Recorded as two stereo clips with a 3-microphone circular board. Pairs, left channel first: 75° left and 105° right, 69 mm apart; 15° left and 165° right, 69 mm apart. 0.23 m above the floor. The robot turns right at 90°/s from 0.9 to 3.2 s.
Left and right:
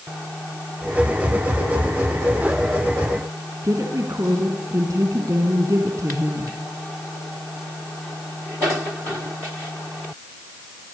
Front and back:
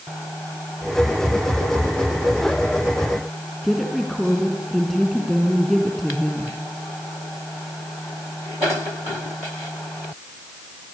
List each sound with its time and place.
3.6 s a woman speaking: 70° right, 3 m